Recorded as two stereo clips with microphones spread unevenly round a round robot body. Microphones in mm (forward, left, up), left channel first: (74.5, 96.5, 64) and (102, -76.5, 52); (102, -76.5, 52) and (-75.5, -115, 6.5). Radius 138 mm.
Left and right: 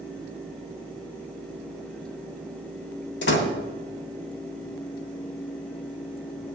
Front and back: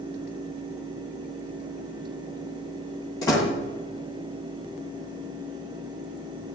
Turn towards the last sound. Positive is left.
turn(degrees=90)